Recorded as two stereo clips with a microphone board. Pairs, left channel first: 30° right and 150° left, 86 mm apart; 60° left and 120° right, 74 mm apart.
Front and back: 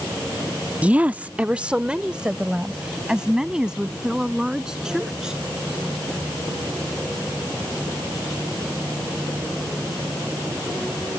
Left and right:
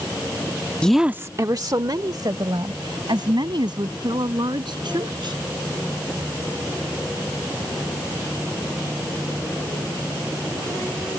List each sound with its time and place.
0.8 s a woman speaking: 110° left; by 5.3 s 125° right